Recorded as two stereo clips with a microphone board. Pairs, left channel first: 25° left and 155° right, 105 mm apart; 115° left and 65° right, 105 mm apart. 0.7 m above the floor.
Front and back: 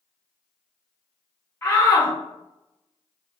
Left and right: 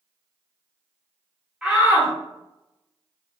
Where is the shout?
Straight ahead, 0.8 m.